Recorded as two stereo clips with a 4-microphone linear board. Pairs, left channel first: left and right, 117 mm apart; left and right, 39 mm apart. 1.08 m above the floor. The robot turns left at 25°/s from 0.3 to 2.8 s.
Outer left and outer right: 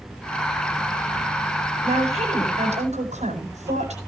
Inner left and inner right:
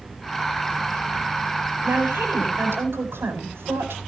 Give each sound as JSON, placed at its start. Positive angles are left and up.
{"t": 1.8, "sound": "a woman speaking", "side_deg": -50, "distance_m": 8.0}